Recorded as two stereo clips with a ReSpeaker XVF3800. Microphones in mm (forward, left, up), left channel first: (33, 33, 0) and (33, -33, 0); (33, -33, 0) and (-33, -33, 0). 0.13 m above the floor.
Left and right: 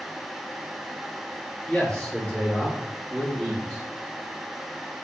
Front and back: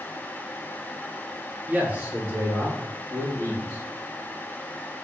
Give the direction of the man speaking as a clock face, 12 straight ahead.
7 o'clock.